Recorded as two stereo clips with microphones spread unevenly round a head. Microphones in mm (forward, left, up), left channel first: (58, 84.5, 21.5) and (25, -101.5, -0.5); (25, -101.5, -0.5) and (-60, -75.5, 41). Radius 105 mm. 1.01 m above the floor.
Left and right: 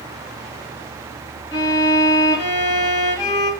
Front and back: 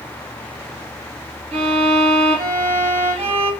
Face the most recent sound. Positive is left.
turn(degrees=150)